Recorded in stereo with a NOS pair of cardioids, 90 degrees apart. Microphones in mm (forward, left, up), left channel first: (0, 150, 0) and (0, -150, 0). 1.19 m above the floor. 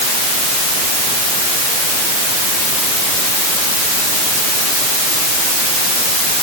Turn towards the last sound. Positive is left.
No sound to turn to.